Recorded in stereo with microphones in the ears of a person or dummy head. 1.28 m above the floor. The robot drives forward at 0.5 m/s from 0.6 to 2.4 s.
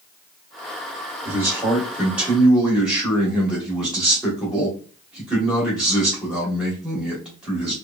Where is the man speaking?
15° right (ahead or behind), 0.8 m; by 7.7 s 5° right (ahead or behind), 1.3 m.